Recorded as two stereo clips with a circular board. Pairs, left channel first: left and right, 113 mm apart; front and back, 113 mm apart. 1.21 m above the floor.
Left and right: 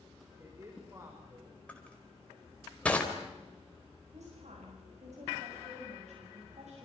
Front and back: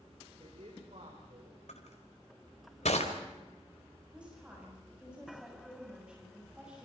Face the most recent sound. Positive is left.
turn(degrees=-100)